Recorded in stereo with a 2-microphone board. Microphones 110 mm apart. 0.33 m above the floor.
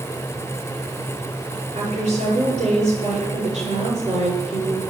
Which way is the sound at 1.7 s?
75° right (ahead or behind).